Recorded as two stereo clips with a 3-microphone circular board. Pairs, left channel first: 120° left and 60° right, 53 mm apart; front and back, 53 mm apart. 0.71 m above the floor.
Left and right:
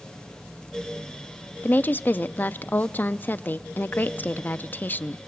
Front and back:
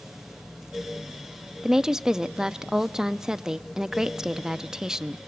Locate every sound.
1.6 s a woman speaking: 110° left, 0.5 m